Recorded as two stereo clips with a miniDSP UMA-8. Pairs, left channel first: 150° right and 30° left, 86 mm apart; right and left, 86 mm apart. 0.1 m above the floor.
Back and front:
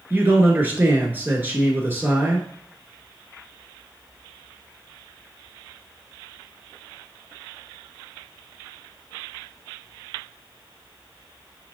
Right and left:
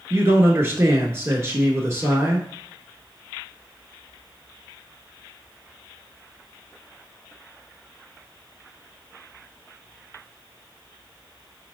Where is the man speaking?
70° left, 1.2 m.